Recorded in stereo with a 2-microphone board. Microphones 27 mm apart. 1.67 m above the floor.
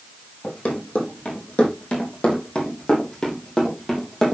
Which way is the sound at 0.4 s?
55° left (ahead or behind).